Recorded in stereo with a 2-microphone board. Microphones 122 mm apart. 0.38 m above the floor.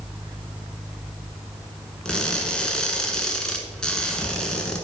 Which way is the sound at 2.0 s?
5° left (ahead or behind).